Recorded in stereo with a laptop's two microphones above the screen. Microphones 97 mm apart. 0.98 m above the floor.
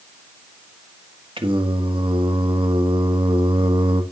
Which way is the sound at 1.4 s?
60° right (ahead or behind).